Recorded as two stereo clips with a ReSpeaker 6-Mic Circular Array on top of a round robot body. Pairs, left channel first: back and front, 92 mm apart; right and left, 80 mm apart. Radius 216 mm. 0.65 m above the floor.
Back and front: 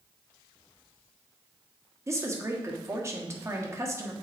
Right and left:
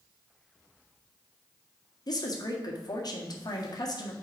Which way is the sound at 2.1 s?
60° right.